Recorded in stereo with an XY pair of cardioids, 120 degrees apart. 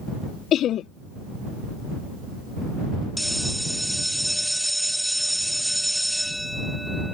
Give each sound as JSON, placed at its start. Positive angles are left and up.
{"t": 0.5, "sound": "laughter", "azimuth_deg": 55}
{"t": 3.2, "sound": "a bell", "azimuth_deg": 0}